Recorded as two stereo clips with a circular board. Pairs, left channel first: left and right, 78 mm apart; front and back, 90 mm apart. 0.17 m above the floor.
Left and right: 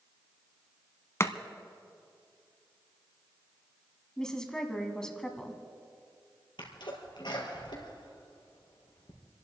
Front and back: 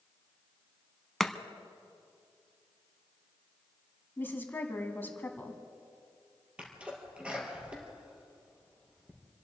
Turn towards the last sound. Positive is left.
turn(degrees=105)